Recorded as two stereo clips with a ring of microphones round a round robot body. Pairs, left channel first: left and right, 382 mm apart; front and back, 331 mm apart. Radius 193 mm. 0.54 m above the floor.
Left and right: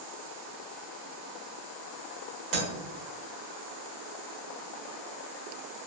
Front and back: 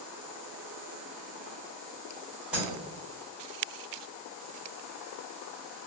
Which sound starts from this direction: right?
Breaking glass, at 2.5 s.